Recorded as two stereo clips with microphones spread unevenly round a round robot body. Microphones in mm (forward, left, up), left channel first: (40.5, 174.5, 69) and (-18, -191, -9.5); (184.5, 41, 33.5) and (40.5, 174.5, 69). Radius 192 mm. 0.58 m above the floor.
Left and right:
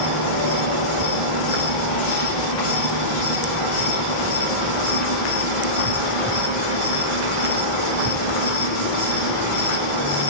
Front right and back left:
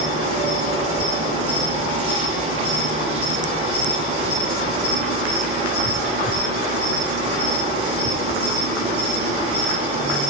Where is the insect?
135° left, 9 m.